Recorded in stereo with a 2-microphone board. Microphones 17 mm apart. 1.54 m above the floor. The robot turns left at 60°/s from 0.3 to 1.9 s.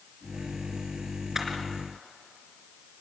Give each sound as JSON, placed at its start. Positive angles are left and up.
{"t": 1.4, "sound": "a camera shutter", "side_deg": -20, "distance_m": 3.5}